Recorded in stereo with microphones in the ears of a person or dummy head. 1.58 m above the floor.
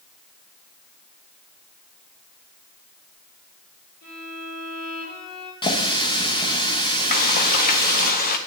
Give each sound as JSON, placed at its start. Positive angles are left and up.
{"t": 4.0, "sound": "a violin", "side_deg": 50, "distance_m": 4.5}
{"t": 5.6, "sound": "a running tap", "side_deg": 25, "distance_m": 1.2}
{"t": 7.1, "sound": "frying", "side_deg": 45, "distance_m": 0.9}